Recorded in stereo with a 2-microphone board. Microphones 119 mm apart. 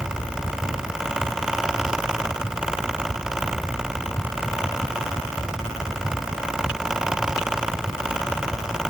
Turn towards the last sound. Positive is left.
No sound to turn to.